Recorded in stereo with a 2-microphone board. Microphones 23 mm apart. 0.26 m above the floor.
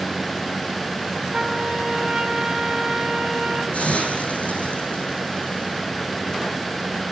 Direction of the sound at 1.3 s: 35° right (ahead or behind).